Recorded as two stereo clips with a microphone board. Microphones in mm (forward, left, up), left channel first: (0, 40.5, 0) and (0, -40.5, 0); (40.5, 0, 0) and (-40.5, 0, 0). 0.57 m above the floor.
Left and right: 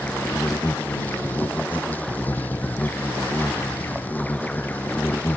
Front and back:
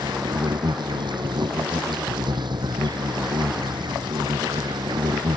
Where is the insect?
160° left.